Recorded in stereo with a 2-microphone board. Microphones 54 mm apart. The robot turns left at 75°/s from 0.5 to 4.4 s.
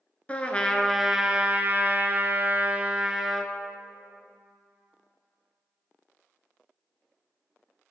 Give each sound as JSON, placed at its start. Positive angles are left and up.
{"t": 0.3, "sound": "a trumpet", "azimuth_deg": 35, "distance_m": 0.6}